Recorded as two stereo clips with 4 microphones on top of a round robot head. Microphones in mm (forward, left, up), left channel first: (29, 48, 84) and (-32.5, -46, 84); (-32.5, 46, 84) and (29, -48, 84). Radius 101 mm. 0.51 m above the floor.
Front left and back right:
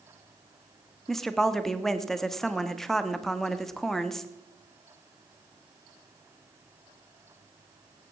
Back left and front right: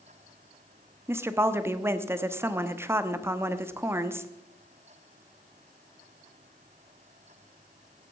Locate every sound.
1.1 s a woman speaking: 25° right, 1.0 m